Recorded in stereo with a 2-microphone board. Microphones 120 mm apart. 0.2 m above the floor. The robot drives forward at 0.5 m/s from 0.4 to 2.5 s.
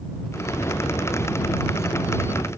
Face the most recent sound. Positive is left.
No sound to turn to.